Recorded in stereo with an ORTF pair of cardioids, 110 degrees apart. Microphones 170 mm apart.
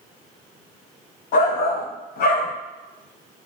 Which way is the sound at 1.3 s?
65° left.